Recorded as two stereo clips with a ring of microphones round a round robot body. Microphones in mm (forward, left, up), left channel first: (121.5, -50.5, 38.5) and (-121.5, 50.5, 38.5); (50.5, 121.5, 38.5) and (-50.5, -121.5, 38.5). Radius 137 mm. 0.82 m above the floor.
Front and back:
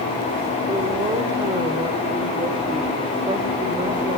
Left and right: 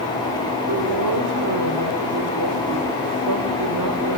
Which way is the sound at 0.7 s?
130° right.